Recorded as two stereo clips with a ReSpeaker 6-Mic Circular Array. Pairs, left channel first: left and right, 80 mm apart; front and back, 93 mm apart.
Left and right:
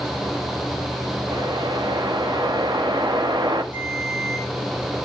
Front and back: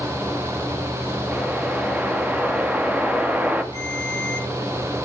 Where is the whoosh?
105° right, 1.2 m.